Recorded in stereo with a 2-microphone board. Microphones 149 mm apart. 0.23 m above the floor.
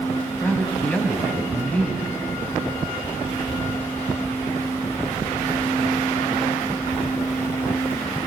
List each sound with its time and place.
0.4 s a man speaking: 10° left (ahead or behind), 1.8 m